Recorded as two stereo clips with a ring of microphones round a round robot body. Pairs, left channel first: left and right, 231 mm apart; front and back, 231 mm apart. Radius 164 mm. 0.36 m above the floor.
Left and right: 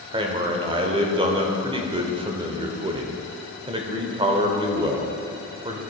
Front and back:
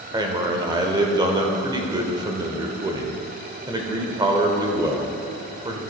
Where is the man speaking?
130° right, 0.8 m.